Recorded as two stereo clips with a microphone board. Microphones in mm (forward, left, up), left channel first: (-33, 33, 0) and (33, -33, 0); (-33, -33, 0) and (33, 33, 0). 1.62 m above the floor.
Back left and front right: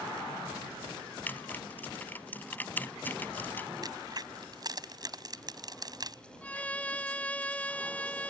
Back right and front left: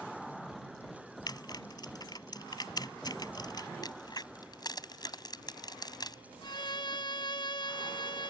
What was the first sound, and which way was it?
Typing on a keyboard, 160° right.